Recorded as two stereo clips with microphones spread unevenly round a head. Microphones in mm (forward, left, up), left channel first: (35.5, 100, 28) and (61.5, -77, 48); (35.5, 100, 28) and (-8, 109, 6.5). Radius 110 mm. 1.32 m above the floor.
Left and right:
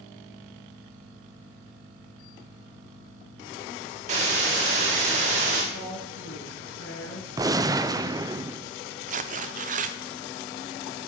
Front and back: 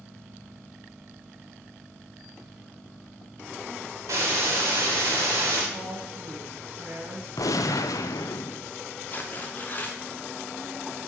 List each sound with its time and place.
4.1 s a hiss: 130° right, 1.4 m
5.7 s a woman speaking: 135° left, 4.5 m
7.4 s a gunshot: 10° right, 0.5 m
9.1 s tearing paper: 90° right, 0.6 m